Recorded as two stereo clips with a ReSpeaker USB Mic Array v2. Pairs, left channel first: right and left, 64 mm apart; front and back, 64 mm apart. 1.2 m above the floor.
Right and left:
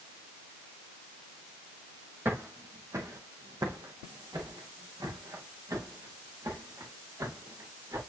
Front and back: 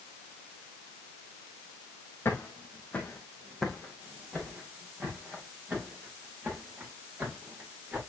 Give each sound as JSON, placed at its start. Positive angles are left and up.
{"t": 2.2, "sound": "footsteps", "azimuth_deg": 45, "distance_m": 1.8}